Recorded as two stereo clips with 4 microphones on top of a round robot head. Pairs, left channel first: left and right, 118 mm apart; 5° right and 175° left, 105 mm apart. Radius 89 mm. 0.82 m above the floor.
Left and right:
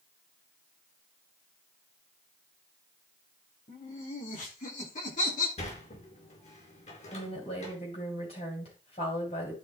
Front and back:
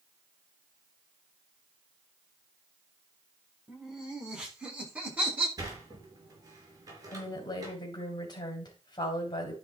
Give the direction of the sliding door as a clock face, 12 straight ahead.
8 o'clock.